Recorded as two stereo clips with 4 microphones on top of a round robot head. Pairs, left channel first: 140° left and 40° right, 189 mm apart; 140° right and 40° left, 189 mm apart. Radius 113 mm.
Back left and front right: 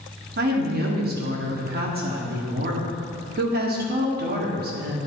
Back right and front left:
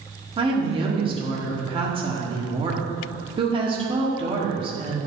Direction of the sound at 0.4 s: 20° right.